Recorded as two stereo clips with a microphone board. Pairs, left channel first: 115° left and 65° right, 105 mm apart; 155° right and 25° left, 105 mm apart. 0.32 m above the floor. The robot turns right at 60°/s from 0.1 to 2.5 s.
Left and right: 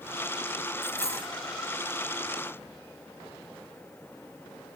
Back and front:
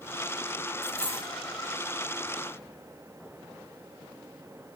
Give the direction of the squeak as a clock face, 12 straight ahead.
I don't hear a squeak.